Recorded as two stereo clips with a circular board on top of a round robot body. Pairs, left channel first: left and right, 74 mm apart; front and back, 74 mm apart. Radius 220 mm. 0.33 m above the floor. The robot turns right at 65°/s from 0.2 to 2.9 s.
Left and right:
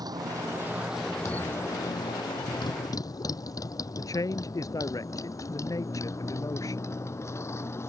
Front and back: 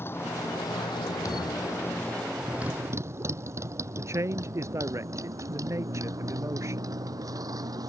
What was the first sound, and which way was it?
A motorcycle, 60° right.